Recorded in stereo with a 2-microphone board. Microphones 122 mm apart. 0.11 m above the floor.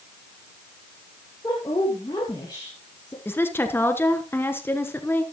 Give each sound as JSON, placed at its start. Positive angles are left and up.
{"t": 1.4, "sound": "a woman speaking", "side_deg": 35, "distance_m": 2.0}
{"t": 3.2, "sound": "a woman speaking", "side_deg": 20, "distance_m": 1.2}